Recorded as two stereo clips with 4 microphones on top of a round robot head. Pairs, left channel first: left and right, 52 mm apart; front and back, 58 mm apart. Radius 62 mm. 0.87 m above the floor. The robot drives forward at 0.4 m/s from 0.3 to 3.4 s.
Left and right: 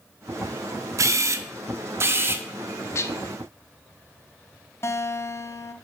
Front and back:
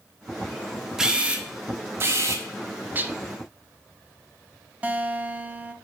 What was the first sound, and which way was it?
A camera shutter, 95° right.